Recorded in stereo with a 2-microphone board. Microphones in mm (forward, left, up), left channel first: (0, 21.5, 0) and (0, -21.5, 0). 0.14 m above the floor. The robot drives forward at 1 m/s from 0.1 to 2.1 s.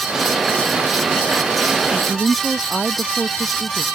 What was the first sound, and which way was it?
A woman speaking, centre (ahead or behind).